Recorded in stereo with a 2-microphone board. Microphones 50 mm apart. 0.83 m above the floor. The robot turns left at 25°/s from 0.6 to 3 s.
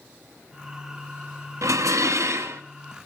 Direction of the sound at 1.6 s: 85° right.